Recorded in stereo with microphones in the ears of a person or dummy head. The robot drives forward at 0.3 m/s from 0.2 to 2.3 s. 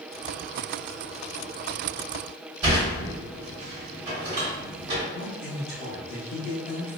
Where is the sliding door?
20° right (ahead or behind), 1.7 m.